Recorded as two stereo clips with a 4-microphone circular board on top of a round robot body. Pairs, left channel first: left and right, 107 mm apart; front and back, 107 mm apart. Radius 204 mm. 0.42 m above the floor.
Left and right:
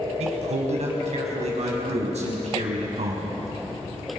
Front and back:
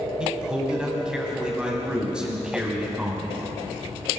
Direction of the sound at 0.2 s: 100° right.